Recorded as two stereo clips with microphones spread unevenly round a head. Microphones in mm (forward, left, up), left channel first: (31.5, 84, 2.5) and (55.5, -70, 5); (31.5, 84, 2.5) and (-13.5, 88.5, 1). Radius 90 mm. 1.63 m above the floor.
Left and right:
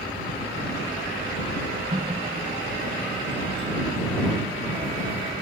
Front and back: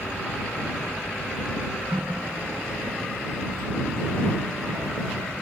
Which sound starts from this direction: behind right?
A running tap, at 1.9 s.